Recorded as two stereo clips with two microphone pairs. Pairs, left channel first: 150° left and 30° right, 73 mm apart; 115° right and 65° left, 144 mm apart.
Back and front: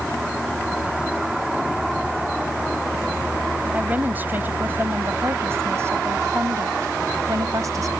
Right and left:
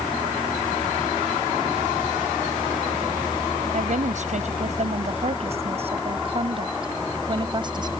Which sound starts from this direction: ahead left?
A woman speaking, at 3.7 s.